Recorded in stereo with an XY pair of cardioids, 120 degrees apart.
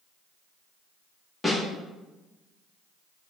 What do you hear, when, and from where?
1.4 s a snare drum: 5° left, 1.6 m